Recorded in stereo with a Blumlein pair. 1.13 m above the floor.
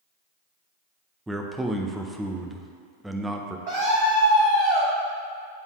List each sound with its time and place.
1.3 s a man speaking: 5° right, 0.6 m
3.7 s a scream: 55° right, 1.2 m